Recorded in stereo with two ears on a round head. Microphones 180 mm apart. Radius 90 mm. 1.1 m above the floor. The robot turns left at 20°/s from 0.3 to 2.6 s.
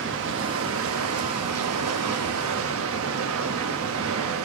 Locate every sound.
0.0 s running water: 60° right, 1.4 m; by 4.5 s 105° right, 1.4 m